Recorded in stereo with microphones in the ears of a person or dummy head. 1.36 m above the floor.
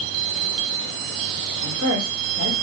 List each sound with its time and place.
1.6 s a woman speaking: 75° right (ahead or behind), 3.5 m